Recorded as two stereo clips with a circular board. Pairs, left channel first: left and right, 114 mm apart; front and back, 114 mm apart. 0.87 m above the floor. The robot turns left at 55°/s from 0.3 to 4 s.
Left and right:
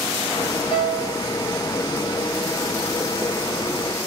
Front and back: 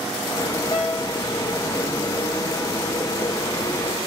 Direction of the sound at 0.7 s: 50° left.